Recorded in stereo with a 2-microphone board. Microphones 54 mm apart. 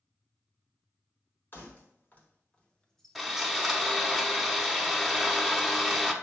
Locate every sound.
1.5 s keys jangling: 40° left (ahead or behind), 1.2 m; by 3.9 s 30° right (ahead or behind), 0.7 m
3.1 s sawing: centre (ahead or behind), 0.7 m